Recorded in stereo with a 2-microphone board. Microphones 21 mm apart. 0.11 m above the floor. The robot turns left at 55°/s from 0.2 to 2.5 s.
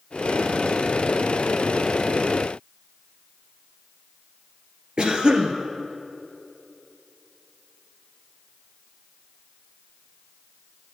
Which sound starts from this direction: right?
A cough, at 5.0 s.